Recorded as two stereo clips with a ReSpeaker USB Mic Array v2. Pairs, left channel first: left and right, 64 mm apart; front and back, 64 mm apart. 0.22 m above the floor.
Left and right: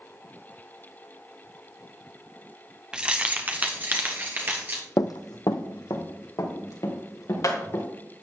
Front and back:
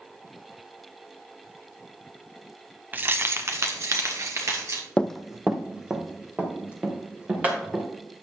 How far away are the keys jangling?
About 0.8 m.